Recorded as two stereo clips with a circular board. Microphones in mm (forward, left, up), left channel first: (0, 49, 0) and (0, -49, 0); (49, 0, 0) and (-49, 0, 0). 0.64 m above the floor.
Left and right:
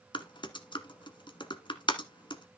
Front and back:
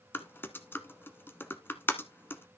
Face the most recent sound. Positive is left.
turn(degrees=65)